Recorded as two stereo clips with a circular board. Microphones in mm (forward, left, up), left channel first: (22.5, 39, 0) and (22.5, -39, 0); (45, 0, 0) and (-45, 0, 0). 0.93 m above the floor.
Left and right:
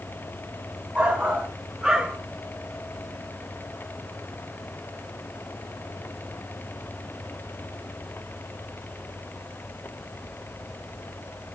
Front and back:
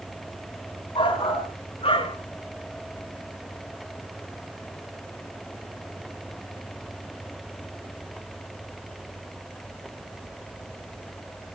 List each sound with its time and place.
0.9 s a shout: 20° right, 4 m; by 2.2 s 10° right, 3 m